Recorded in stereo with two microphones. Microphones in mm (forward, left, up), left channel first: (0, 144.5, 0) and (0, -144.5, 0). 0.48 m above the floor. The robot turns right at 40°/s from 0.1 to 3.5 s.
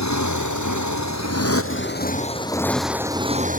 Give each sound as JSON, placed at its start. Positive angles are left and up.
{"t": 0.0, "sound": "a motorcycle", "azimuth_deg": 70}